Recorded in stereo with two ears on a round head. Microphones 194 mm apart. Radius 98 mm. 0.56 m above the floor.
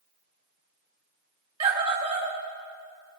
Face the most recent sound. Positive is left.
turn(degrees=-25)  # may be behind; listen again after turning